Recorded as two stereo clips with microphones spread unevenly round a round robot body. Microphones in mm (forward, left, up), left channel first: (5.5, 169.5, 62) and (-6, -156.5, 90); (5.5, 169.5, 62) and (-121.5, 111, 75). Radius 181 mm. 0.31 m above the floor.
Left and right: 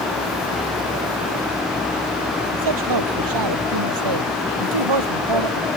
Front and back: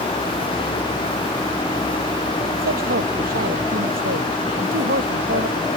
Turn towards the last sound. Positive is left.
turn(degrees=-105)